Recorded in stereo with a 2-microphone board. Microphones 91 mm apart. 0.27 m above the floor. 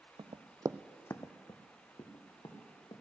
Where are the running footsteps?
75° right (ahead or behind), 0.9 m; by 3.0 s 55° left (ahead or behind), 3.5 m.